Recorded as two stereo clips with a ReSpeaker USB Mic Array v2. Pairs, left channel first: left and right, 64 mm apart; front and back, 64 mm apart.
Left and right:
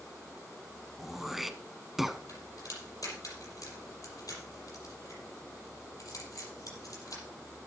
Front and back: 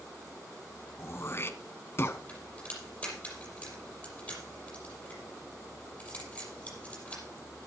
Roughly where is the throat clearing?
Ahead.